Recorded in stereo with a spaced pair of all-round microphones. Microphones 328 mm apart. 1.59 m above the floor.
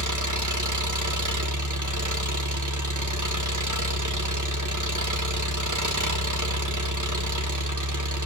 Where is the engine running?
65° right (ahead or behind), 1.4 m.